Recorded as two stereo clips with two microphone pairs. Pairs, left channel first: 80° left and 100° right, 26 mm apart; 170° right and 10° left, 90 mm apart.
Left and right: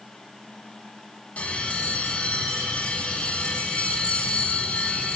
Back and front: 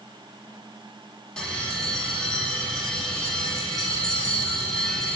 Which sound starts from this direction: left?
A bell, at 1.4 s.